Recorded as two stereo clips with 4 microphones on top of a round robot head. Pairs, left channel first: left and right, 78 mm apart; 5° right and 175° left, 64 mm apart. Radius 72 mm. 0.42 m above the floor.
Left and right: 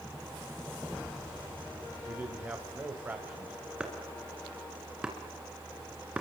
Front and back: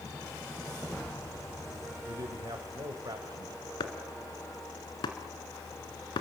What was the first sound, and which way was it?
A man speaking, 155° right.